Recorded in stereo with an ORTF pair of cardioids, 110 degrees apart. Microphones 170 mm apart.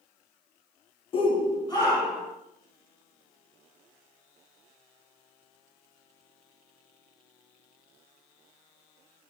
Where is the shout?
30° left, 0.6 m; by 2.3 s 20° left, 2 m.